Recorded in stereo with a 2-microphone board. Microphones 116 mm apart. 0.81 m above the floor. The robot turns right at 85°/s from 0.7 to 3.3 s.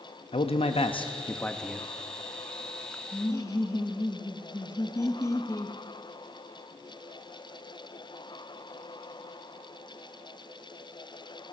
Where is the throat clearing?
I don't hear throat clearing.